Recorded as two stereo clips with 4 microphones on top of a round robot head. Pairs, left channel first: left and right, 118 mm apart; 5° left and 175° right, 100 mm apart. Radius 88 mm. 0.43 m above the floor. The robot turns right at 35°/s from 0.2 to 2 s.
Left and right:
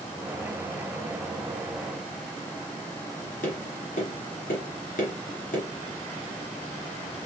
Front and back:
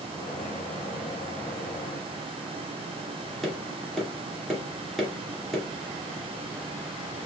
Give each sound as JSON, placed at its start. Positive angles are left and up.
{"t": 3.4, "sound": "tapping", "azimuth_deg": 95, "distance_m": 2.5}